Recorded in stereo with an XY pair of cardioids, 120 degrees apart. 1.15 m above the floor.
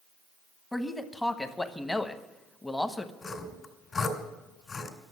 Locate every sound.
0.7 s a man speaking: 10° left, 1.2 m
3.2 s sawing: 35° left, 2.5 m